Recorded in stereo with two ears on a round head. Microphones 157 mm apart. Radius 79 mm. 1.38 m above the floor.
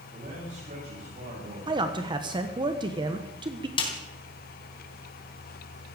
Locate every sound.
0.1 s a man speaking: 40° right (ahead or behind), 8.5 m
1.7 s a man speaking: 25° right (ahead or behind), 1.1 m
3.8 s a snare drum: 25° left (ahead or behind), 3.5 m